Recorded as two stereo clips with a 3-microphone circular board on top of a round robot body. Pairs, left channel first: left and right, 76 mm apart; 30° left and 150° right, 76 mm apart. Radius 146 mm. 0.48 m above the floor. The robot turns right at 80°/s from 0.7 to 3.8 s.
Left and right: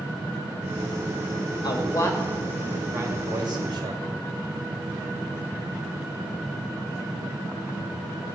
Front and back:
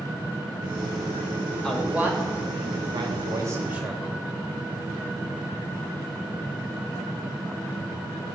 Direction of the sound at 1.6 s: 110° left.